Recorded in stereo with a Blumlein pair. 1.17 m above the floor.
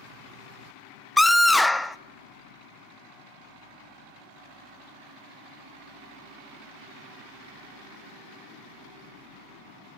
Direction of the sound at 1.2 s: 5° left.